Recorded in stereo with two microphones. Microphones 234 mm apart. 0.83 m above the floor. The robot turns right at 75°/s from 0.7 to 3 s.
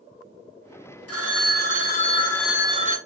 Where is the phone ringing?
75° left, 1.1 m; by 3.0 s 145° right, 1.1 m.